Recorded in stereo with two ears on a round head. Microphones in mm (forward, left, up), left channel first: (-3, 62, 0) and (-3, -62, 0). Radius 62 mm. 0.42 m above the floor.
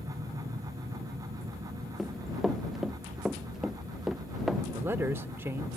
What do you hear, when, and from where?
0.0 s an aircraft: 50° right (ahead or behind); by 5.8 s 45° right (ahead or behind)
2.0 s running footsteps: centre (ahead or behind); by 4.6 s 5° right (ahead or behind)
4.7 s a man speaking: 15° right (ahead or behind)